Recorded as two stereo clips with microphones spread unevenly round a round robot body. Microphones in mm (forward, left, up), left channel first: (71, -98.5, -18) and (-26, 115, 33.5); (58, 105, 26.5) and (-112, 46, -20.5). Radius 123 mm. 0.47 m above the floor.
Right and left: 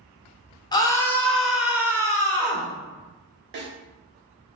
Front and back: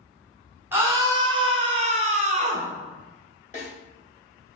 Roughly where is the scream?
Right.